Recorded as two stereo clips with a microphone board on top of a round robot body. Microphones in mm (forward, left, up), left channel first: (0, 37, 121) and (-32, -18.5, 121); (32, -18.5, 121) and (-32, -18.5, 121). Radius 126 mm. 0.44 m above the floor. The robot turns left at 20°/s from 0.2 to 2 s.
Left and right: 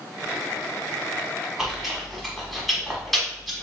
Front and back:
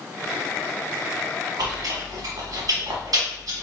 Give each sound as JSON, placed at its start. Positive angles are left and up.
{"t": 1.6, "sound": "chewing", "azimuth_deg": 155, "distance_m": 1.0}